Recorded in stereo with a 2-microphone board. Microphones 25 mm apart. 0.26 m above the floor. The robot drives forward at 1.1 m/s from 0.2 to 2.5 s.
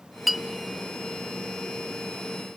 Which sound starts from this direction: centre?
A clink, at 0.3 s.